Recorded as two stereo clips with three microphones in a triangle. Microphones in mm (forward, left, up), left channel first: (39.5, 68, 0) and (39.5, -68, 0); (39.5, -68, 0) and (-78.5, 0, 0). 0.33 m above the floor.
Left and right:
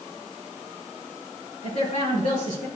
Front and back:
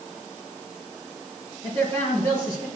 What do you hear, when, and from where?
1.6 s a man speaking: 100° left, 4 m